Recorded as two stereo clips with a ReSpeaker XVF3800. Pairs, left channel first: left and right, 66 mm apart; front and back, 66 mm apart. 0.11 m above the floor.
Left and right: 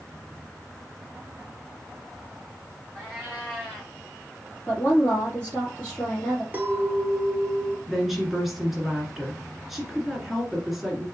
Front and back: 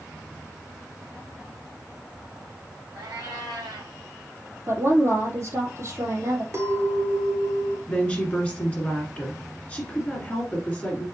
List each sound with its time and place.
3.0 s a cat meowing: 170° left, 2.5 m
4.7 s a woman speaking: 145° left, 3 m
6.5 s a clink: 150° right, 1.1 m
7.9 s a woman speaking: 10° right, 1.7 m